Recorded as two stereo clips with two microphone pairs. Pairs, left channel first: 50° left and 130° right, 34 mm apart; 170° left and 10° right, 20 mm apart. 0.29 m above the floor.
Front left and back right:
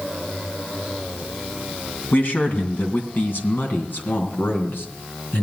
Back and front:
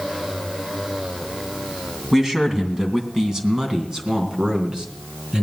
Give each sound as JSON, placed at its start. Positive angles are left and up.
{"t": 2.1, "sound": "a man speaking", "azimuth_deg": 65, "distance_m": 2.5}